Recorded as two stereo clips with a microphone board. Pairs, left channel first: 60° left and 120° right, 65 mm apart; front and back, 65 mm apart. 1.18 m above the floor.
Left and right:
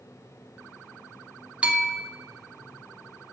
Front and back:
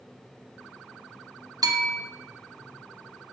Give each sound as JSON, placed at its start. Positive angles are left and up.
{"t": 1.6, "sound": "a bell", "azimuth_deg": 170, "distance_m": 1.0}